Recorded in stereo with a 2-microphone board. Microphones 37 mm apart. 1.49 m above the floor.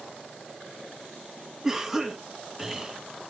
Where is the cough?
5° right (ahead or behind), 1.7 m.